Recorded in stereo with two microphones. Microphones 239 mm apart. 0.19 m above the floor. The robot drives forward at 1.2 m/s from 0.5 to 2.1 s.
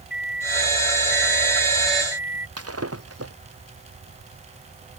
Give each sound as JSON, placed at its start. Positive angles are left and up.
{"t": 0.1, "sound": "a microwave", "side_deg": 40}
{"t": 2.6, "sound": "breaking glass", "side_deg": -80}